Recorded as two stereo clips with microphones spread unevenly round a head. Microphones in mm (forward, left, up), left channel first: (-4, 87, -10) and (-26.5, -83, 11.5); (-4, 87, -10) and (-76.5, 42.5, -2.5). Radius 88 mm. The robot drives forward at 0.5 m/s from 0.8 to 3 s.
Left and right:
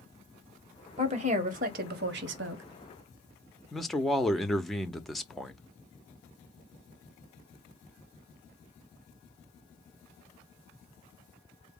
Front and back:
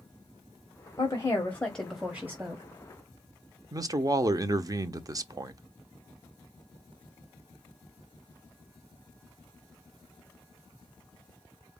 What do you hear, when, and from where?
1.0 s a woman speaking: 40° right, 1.2 m; by 2.6 s 80° right, 0.8 m
3.7 s a man speaking: 165° left, 0.7 m